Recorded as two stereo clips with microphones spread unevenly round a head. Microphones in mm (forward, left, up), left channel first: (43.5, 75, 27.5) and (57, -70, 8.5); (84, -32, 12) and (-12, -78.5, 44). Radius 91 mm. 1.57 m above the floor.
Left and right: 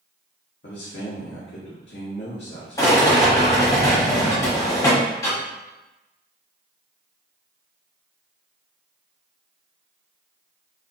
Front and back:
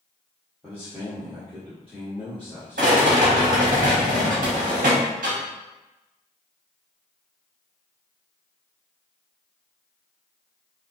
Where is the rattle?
170° left, 0.9 m.